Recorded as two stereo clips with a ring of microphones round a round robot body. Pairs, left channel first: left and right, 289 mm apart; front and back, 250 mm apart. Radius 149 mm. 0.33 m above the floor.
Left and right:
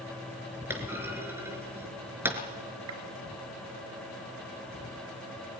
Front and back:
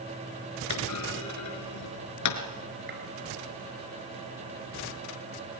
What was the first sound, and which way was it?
A clunk, 10° right.